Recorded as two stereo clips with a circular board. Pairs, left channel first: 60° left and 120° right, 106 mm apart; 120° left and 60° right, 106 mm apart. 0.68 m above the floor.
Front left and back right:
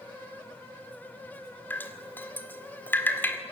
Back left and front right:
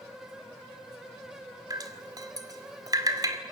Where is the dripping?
10° right, 2 m.